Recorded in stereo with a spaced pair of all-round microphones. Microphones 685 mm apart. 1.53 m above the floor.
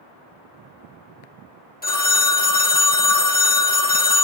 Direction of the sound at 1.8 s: 15° left (ahead or behind).